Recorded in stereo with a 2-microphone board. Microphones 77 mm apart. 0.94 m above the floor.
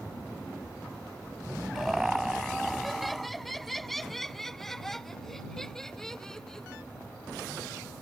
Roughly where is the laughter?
Centre.